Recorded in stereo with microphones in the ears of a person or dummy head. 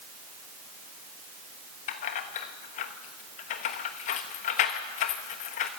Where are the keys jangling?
40° left (ahead or behind), 1.1 m.